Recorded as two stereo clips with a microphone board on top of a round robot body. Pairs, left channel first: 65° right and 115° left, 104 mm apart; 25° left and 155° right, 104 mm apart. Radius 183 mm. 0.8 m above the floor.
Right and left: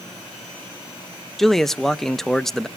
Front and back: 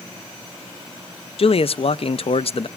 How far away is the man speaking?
About 0.6 m.